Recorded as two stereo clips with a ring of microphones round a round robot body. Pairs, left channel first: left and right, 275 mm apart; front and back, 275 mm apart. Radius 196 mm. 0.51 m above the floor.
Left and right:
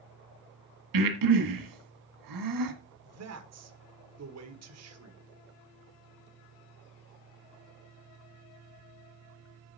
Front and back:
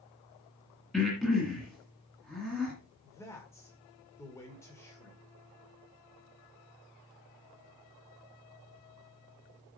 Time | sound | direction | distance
0.9 | breathing | 90° right | 1.7 m
3.0 | a man speaking | 80° right | 1.7 m